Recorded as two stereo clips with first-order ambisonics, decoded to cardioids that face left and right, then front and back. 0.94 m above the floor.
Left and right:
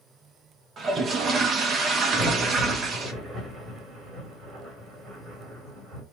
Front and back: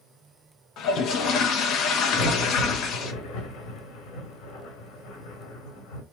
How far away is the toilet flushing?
About 0.7 m.